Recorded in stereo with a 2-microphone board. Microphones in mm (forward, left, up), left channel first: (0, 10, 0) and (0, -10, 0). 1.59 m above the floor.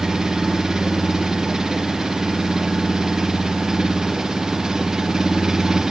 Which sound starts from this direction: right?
An engine running, at 0.0 s.